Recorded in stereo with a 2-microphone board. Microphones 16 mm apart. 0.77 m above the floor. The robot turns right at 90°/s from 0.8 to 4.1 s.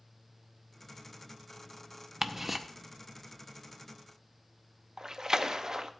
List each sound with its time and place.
2.2 s ticking: 35° right (ahead or behind), 0.7 m; by 2.6 s 15° right (ahead or behind), 0.7 m
5.0 s a splash: 45° right (ahead or behind), 0.6 m